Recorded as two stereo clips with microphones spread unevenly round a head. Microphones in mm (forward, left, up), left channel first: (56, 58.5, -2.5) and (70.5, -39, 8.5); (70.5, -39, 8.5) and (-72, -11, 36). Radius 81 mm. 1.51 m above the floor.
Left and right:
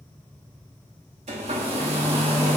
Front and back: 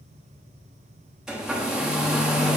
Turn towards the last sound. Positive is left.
turn(degrees=-110)